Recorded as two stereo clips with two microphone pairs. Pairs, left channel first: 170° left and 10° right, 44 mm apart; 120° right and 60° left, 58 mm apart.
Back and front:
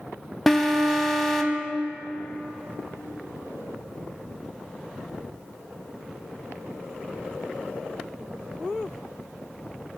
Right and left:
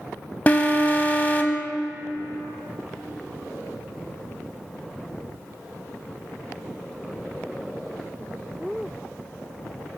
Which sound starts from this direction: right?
An alarm, at 0.5 s.